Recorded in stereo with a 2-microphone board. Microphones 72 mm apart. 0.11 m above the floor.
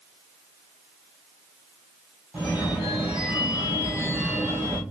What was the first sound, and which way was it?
A phone ringing, 15° right (ahead or behind).